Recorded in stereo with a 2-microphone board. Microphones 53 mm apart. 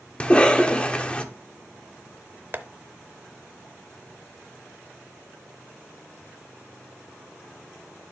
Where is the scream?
No scream in this recording.